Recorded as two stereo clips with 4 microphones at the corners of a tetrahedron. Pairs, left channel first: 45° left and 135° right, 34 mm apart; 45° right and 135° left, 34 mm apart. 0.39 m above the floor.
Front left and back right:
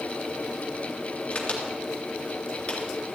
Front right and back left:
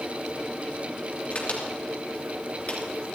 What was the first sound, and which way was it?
A crack, 10° right.